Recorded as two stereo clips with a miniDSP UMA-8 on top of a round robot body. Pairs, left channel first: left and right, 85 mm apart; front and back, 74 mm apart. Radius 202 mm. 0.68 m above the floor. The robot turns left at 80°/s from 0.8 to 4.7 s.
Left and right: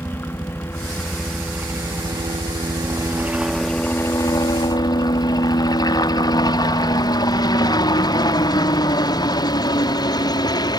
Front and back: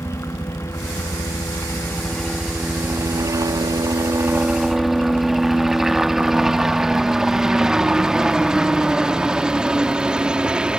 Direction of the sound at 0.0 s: 35° left.